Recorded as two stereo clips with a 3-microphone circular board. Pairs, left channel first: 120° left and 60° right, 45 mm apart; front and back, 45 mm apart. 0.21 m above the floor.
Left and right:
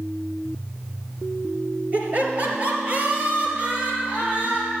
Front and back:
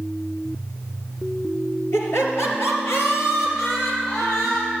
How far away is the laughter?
About 3 m.